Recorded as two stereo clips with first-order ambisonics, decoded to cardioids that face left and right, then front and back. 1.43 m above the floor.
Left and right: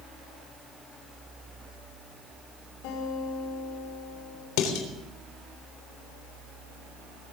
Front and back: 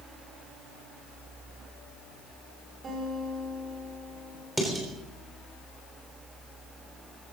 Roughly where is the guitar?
Left.